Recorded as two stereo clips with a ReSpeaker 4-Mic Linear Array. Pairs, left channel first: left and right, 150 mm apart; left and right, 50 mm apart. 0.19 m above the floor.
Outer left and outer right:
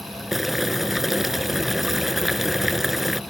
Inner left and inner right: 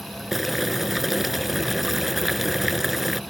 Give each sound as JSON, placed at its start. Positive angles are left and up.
{"t": 0.3, "sound": "boiling", "side_deg": 0}